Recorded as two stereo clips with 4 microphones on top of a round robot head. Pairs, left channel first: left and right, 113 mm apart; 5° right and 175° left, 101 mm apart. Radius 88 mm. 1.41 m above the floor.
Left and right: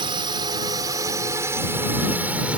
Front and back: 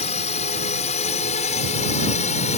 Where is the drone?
35° right; by 2.6 s 10° right.